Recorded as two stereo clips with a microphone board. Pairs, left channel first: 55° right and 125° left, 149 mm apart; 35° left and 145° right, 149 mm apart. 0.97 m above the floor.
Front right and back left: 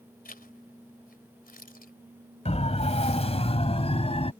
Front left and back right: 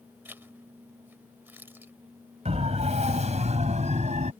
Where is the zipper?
70° right.